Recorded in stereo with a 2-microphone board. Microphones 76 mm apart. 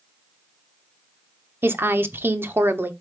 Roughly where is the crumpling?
No crumpling in this recording.